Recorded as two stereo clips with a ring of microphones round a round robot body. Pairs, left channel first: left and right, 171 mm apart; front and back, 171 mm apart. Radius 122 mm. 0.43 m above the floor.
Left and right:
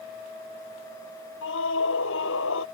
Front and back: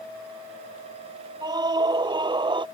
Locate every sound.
1.4 s a scream: 115° left